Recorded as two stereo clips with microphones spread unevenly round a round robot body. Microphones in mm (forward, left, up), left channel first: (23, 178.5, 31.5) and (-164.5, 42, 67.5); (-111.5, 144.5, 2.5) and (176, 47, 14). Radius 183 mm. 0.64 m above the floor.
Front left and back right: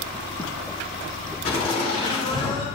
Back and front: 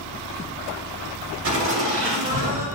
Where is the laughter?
20° right, 3.5 m; by 2.7 s 30° right, 3 m.